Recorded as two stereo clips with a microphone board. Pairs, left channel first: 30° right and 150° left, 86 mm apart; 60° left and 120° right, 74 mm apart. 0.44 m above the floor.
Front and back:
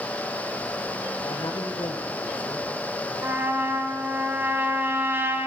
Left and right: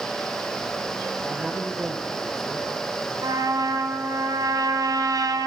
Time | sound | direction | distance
1.2 | a man speaking | 55° right | 7.5 m
3.2 | a trumpet | 145° right | 3.5 m